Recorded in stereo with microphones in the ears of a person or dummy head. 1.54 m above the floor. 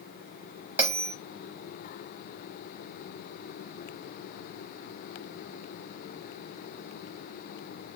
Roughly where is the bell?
Centre.